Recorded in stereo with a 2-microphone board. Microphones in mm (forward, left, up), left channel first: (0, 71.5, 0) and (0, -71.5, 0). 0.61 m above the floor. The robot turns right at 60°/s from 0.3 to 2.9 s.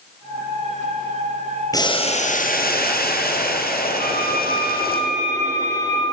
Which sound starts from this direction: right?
A violin, at 4.0 s.